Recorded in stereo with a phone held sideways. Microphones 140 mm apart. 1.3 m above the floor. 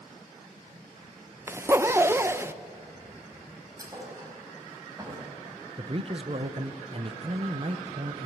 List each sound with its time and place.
1.5 s a zipper: 15° right (ahead or behind), 0.7 m
3.8 s a thud: 25° right (ahead or behind), 5 m
5.8 s a man speaking: 40° right (ahead or behind), 0.9 m